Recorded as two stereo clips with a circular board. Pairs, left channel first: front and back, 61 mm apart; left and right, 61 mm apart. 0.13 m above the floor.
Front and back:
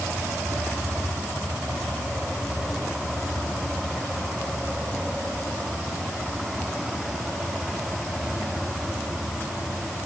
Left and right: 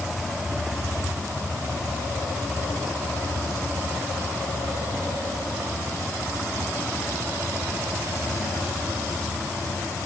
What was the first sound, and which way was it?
Only background noise.